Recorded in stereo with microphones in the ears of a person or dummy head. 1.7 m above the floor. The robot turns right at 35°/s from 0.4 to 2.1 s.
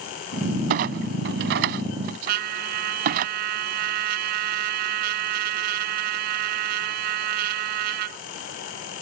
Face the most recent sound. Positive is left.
turn(degrees=-50)  # may be behind; listen again after turning